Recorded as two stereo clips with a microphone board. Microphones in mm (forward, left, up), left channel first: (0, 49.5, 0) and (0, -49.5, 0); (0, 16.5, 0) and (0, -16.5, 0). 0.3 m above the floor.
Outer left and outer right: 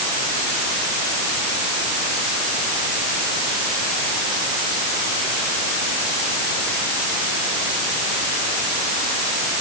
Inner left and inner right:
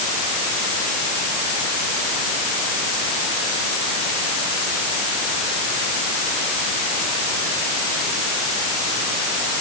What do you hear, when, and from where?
Only background noise.